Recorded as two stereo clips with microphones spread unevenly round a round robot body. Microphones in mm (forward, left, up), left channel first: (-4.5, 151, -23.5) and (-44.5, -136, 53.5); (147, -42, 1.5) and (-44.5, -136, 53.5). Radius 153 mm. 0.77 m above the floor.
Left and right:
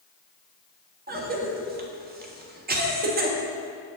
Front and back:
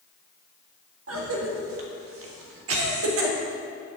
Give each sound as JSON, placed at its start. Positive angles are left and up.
{"t": 1.1, "sound": "a cough", "azimuth_deg": -165, "distance_m": 1.6}